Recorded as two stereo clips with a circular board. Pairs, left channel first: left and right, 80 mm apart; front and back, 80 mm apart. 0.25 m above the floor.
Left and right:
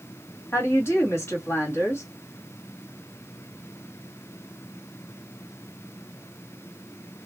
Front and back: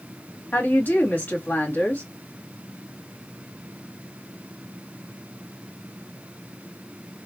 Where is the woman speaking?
55° left, 1.4 m.